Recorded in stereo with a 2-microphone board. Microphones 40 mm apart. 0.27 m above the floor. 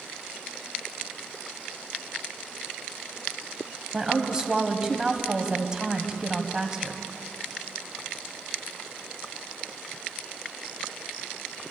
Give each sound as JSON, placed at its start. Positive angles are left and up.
{"t": 3.9, "sound": "a woman speaking", "side_deg": -20, "distance_m": 1.4}